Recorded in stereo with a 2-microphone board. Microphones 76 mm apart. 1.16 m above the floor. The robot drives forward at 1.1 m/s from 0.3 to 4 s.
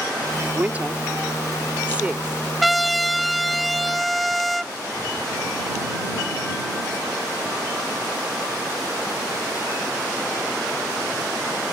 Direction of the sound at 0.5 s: 25° right (ahead or behind).